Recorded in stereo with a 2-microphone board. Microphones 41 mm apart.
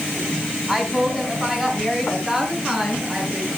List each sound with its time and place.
0.7 s a woman speaking: 10° right (ahead or behind), 3 m